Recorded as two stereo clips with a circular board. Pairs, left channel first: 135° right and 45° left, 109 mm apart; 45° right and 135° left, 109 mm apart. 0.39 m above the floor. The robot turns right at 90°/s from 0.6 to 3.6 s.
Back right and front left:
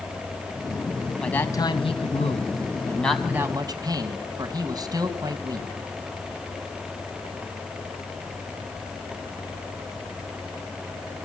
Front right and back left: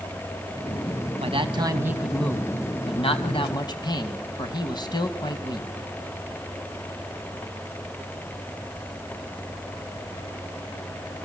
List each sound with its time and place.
1.2 s a man speaking: 140° left, 2.5 m; by 5.7 s 5° right, 2.5 m